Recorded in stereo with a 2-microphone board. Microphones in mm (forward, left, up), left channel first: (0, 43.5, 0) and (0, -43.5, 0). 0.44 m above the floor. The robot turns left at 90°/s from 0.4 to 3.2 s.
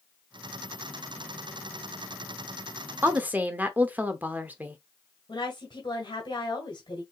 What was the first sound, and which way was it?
A woman speaking, 25° right (ahead or behind).